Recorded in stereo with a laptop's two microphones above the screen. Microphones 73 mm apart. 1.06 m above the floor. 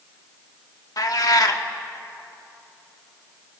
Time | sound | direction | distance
1.0 | a cat meowing | 55° left (ahead or behind) | 1.2 m